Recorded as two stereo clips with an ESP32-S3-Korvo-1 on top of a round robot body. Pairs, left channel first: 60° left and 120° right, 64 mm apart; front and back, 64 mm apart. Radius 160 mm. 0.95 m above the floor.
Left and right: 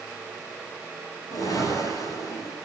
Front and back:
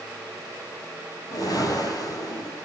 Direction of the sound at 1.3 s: 25° left.